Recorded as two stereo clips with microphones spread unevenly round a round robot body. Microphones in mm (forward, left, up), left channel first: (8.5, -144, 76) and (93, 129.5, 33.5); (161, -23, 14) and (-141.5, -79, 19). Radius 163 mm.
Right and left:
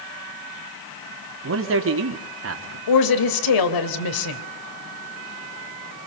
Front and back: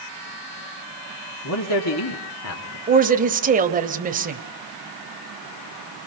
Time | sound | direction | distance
1.4 | a man speaking | 45° left | 2 m
2.9 | a woman speaking | 105° right | 2.5 m